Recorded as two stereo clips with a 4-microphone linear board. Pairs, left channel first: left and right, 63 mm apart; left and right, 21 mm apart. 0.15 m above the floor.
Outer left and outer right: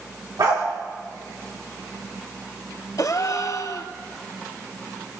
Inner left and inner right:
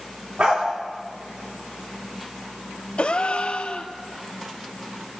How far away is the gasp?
About 0.9 m.